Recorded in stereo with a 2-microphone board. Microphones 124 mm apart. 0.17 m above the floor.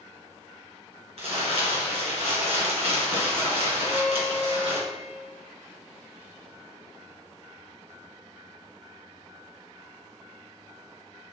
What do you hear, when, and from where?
1.2 s crumpling: 55° right (ahead or behind), 2 m
3.8 s a violin: 20° right (ahead or behind), 0.9 m